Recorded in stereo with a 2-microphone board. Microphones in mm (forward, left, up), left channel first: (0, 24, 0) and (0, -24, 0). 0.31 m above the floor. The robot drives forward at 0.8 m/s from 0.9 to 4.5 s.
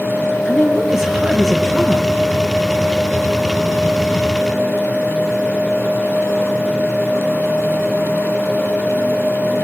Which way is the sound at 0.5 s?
10° right (ahead or behind).